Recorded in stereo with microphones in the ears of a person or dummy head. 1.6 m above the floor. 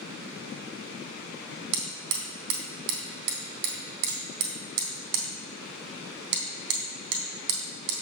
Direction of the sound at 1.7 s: 65° right (ahead or behind).